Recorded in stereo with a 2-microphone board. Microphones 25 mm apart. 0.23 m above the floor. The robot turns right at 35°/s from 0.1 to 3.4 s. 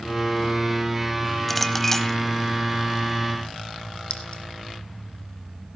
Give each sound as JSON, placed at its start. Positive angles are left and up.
{"t": 1.5, "sound": "a clink", "side_deg": 5, "distance_m": 0.9}
{"t": 4.1, "sound": "a clink", "side_deg": 45, "distance_m": 2.5}